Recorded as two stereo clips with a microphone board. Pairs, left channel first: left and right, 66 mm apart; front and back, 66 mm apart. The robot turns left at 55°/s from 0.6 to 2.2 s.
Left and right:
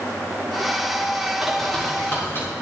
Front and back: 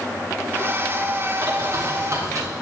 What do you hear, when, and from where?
1.4 s a bird: 175° right, 2 m; by 2.5 s 140° left, 2 m